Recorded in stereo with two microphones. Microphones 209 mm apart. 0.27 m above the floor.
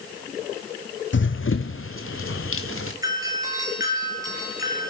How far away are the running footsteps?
About 0.7 m.